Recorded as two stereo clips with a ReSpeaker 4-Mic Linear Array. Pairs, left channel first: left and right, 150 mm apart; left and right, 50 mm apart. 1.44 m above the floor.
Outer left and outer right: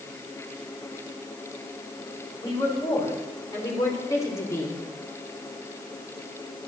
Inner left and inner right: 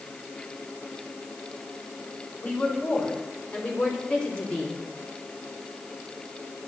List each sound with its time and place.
2.4 s a woman speaking: 25° left (ahead or behind), 7 m; by 4.8 s 20° left (ahead or behind), 3.5 m